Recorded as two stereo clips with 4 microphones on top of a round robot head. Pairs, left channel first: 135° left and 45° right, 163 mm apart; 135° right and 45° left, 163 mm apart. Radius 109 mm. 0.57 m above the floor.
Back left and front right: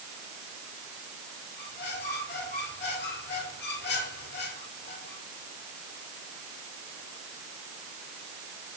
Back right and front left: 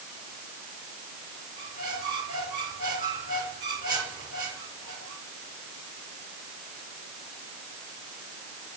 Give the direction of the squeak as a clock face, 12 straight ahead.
8 o'clock.